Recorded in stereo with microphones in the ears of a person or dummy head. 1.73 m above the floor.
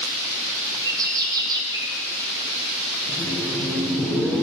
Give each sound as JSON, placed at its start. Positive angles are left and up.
{"t": 0.8, "sound": "a bird", "side_deg": -25, "distance_m": 2.0}
{"t": 3.1, "sound": "laughter", "side_deg": 10, "distance_m": 1.0}